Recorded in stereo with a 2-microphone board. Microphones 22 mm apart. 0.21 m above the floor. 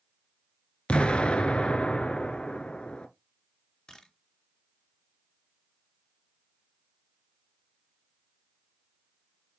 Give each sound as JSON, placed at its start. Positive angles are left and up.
{"t": 0.9, "sound": "an explosion", "side_deg": 50, "distance_m": 1.0}
{"t": 3.9, "sound": "a camera shutter", "side_deg": 35, "distance_m": 2.0}